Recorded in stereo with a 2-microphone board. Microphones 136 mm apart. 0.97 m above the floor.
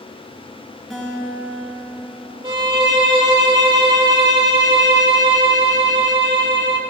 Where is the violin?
30° right (ahead or behind), 1.2 m.